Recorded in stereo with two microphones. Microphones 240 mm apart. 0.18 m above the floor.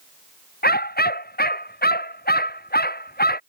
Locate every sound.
0.6 s a dog barking: 40° left (ahead or behind)